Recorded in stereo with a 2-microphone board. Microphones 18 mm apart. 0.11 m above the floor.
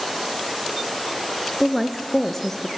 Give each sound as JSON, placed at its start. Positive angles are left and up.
{"t": 1.6, "sound": "a woman speaking", "side_deg": -5, "distance_m": 1.2}